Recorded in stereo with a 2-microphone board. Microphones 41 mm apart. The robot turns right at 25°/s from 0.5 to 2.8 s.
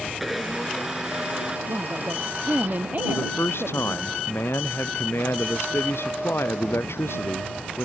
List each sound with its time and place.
0.2 s a blender: centre (ahead or behind); by 1.6 s 20° right (ahead or behind)
1.7 s a woman speaking: 65° right (ahead or behind); by 4.1 s 45° right (ahead or behind)
3.1 s a man speaking: 85° left